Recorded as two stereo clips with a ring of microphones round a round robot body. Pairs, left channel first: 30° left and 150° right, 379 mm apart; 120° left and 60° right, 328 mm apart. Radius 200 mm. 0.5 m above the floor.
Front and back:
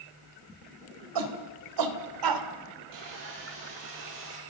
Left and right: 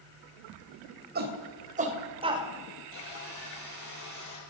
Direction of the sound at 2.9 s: 170° left.